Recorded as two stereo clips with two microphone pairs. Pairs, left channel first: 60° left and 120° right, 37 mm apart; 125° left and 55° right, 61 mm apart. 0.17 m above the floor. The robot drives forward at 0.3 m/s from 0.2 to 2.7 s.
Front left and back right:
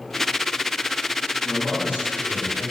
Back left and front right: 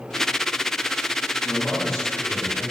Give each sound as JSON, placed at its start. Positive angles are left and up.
{"t": 1.4, "sound": "a man speaking", "azimuth_deg": -145, "distance_m": 1.1}